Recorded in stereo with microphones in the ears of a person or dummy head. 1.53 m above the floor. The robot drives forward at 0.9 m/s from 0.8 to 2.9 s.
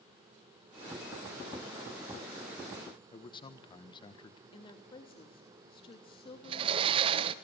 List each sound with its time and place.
3.1 s a man speaking: 30° left (ahead or behind), 1.3 m
4.5 s a woman speaking: 30° left (ahead or behind), 3 m
6.4 s a sliding door: 30° right (ahead or behind), 1.4 m